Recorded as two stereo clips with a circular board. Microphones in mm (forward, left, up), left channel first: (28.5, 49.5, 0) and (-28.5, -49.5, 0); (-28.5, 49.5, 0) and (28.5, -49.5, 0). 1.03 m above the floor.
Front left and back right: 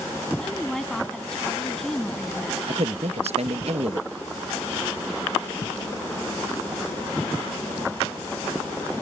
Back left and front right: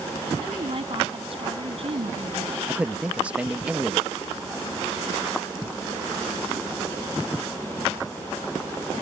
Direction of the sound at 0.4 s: 25° right.